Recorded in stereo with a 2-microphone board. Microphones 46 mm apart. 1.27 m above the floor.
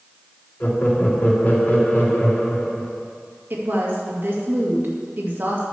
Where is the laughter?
40° left (ahead or behind), 2.5 m.